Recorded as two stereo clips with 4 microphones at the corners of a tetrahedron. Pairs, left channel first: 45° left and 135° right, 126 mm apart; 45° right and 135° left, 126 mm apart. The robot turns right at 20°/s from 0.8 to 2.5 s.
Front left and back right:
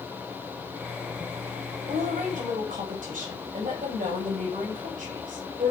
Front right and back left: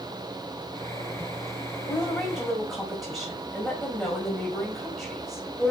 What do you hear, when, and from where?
1.8 s a woman speaking: 145° right, 4.5 m; by 5.7 s 135° right, 4.5 m